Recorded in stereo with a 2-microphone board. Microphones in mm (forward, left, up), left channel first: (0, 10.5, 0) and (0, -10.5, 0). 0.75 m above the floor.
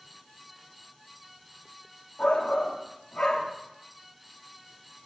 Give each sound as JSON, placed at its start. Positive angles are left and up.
{"t": 2.2, "sound": "a shout", "side_deg": 50, "distance_m": 1.4}